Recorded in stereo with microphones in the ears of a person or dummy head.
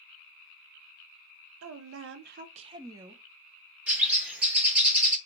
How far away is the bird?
About 0.8 m.